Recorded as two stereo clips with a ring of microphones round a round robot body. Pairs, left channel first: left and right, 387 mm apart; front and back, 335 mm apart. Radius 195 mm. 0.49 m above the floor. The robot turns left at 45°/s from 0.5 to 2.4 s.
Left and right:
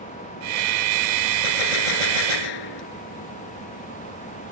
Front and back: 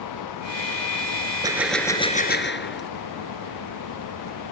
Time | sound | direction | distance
1.4 | a gunshot | 100° left | ?